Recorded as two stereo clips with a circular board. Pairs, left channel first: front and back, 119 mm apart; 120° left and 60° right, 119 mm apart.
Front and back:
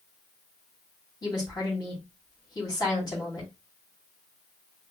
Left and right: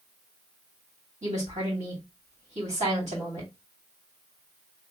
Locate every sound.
1.2 s a woman speaking: 55° right, 2.5 m